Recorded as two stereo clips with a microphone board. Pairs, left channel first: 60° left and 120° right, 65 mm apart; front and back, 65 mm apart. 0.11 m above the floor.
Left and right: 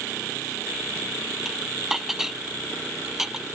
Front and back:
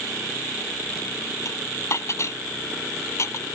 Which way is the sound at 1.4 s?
35° right.